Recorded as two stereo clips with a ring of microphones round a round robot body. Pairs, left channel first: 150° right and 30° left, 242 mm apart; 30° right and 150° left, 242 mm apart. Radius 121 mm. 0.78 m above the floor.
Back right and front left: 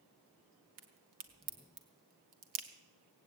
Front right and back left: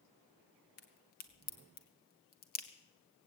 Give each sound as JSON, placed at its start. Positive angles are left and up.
{"t": 0.8, "sound": "a crack", "azimuth_deg": 25, "distance_m": 1.4}